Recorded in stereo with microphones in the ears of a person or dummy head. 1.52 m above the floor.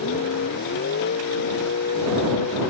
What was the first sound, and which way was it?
A vehicle, 65° left (ahead or behind).